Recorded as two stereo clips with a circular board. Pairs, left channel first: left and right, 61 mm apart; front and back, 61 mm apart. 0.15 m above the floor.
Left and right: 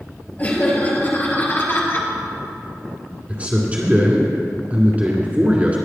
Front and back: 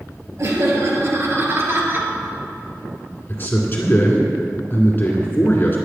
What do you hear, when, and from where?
0.4 s laughter: 150° left, 3.5 m; by 2.1 s 135° left, 2.5 m
3.3 s a man speaking: 35° right, 2 m